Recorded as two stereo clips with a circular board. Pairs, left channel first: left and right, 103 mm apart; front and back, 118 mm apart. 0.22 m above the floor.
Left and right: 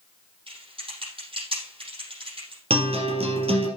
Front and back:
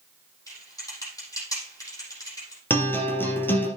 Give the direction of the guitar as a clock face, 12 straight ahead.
2 o'clock.